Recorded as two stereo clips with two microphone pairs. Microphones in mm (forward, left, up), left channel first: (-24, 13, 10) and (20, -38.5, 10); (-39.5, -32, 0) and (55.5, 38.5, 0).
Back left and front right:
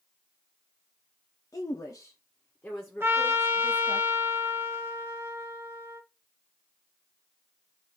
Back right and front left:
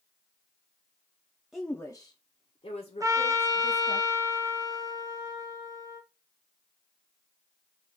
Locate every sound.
1.5 s a woman speaking: 125° left, 0.5 m; by 4.0 s 140° right, 1.5 m
3.0 s a trumpet: 10° right, 0.6 m